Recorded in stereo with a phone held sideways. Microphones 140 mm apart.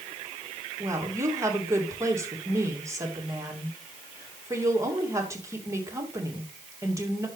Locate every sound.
0.8 s a woman speaking: 20° right (ahead or behind), 2.5 m